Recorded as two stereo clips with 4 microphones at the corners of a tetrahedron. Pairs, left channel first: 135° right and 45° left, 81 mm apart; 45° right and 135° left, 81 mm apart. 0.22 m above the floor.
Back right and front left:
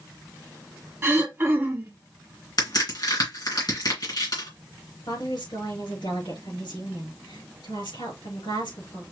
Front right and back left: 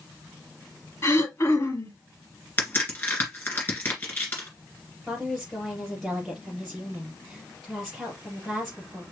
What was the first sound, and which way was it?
Throat clearing, 10° right.